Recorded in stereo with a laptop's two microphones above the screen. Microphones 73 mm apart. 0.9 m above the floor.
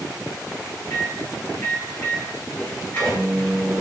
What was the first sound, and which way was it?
A microwave, 20° left (ahead or behind).